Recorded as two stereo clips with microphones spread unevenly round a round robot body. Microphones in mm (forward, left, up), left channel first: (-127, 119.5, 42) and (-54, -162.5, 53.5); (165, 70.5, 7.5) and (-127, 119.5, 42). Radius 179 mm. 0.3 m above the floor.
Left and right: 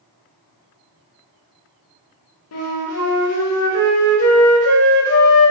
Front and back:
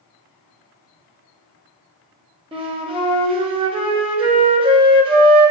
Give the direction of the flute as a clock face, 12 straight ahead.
9 o'clock.